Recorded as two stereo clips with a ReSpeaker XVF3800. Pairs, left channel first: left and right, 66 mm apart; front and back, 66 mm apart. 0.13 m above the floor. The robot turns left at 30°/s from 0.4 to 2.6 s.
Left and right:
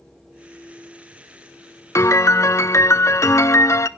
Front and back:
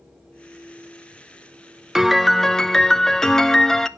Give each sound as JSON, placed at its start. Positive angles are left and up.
{"t": 1.9, "sound": "a piano", "azimuth_deg": 100, "distance_m": 0.5}